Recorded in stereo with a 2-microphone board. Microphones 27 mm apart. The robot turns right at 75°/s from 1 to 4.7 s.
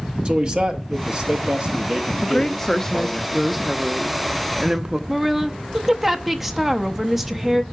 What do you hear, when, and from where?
0.2 s a man speaking: 110° right, 0.9 m; by 3.2 s 55° left, 0.9 m
2.2 s a woman speaking: 25° left (ahead or behind), 0.6 m; by 5.0 s 25° right (ahead or behind), 0.6 m
5.1 s a woman speaking: 5° right (ahead or behind), 0.7 m